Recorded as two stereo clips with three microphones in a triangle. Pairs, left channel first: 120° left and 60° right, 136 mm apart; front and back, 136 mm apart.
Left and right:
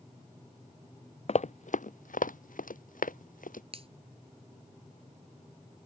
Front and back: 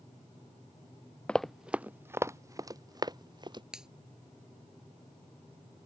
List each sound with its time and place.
1.3 s running footsteps: 80° left; by 3.6 s 125° left
3.7 s a finger snap: 95° right